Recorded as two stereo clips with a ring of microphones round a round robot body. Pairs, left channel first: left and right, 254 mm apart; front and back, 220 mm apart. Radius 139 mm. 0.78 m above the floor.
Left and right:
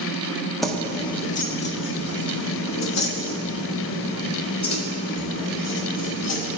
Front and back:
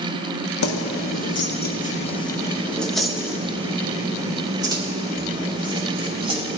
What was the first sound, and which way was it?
Keys jangling, straight ahead.